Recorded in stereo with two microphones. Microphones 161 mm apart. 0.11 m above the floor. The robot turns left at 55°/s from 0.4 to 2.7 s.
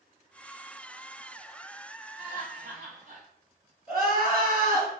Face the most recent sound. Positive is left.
turn(degrees=-60)  # may be behind; listen again after turning